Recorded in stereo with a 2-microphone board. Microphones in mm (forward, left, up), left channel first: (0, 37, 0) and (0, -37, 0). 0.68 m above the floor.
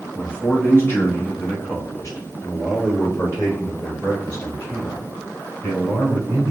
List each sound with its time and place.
0.1 s a man speaking: 15° left (ahead or behind), 1.0 m; by 6.5 s 45° left (ahead or behind), 3.5 m